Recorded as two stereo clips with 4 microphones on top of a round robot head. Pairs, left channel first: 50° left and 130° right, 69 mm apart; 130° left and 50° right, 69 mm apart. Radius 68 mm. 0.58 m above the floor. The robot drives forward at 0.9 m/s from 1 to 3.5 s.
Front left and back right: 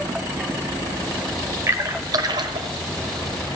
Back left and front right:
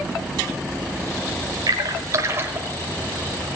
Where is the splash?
80° right, 1.4 m; by 2.7 s 115° right, 1.5 m.